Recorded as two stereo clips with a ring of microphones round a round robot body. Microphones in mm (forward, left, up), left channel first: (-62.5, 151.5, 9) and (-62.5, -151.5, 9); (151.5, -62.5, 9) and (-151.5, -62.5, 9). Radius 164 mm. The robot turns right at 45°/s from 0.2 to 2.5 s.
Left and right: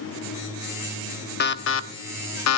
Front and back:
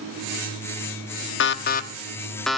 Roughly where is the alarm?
Ahead left.